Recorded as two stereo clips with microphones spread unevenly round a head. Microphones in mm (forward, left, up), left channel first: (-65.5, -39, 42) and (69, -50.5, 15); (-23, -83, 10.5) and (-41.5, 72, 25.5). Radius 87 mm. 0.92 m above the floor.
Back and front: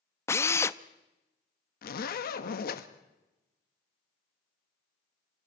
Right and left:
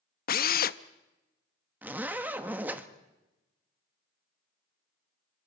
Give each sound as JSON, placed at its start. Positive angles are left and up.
{"t": 0.3, "sound": "a drill", "azimuth_deg": -110, "distance_m": 0.8}
{"t": 1.8, "sound": "a zipper", "azimuth_deg": 175, "distance_m": 1.5}